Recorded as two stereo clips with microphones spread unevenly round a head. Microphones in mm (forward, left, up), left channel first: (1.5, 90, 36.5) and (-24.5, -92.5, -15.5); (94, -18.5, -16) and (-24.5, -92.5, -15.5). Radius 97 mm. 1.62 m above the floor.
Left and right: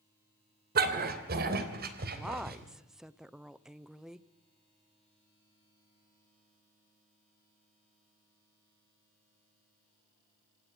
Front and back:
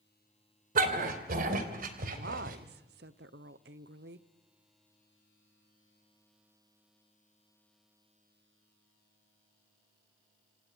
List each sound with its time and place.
0.8 s a dog barking: 145° right, 2.5 m
2.1 s a woman speaking: 175° left, 0.8 m